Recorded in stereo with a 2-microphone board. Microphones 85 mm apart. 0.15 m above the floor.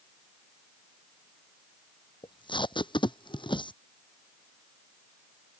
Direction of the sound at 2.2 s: 70° left (ahead or behind).